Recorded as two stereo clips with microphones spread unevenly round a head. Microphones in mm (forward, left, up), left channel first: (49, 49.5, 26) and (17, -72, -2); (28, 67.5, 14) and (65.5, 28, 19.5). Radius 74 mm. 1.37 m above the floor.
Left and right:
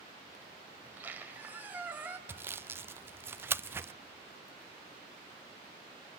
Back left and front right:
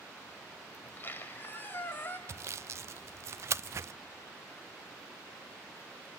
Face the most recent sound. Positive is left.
turn(degrees=-55)